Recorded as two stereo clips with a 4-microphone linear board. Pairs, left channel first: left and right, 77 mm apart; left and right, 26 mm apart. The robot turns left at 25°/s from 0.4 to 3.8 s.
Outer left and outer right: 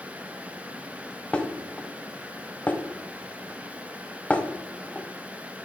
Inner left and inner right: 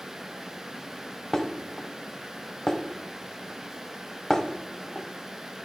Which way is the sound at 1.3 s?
15° left (ahead or behind).